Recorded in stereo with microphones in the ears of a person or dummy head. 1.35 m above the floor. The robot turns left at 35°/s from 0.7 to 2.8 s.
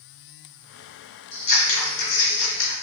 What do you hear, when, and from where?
1.3 s scissors: 130° left, 1.4 m; by 2.7 s 80° left, 1.4 m